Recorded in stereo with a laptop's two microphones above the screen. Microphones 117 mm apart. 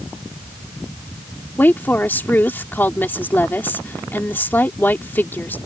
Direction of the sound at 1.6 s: 15° left (ahead or behind).